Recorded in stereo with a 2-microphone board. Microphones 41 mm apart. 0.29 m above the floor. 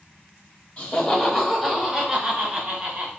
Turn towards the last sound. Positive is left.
turn(degrees=-35)  # may be behind; listen again after turning